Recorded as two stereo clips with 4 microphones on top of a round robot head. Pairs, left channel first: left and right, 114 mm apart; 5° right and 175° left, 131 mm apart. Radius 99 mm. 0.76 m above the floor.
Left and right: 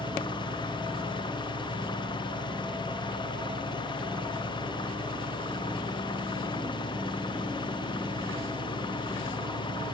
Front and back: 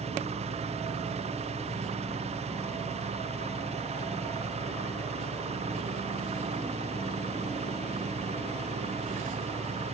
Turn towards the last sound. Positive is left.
turn(degrees=135)